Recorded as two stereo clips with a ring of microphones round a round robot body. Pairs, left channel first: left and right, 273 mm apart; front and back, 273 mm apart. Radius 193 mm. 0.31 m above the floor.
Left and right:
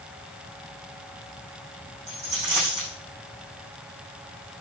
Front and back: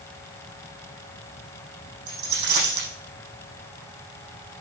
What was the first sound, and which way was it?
A dropped coin, 175° left.